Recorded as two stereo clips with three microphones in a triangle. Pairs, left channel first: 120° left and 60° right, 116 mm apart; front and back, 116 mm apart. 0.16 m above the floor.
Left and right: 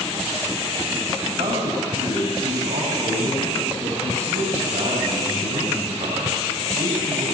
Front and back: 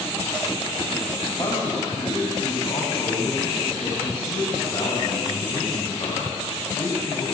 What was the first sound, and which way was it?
A man speaking, 50° right.